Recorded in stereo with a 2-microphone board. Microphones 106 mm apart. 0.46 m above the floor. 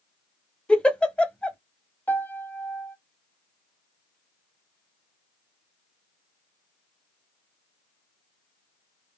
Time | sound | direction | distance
0.7 | a giggle | 10° left (ahead or behind) | 0.6 m
2.1 | a piano | 20° left (ahead or behind) | 0.8 m